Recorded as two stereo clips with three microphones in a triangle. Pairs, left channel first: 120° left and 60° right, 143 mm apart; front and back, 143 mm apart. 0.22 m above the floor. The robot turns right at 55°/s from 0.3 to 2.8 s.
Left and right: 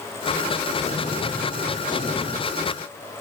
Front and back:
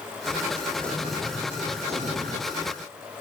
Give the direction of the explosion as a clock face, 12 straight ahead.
9 o'clock.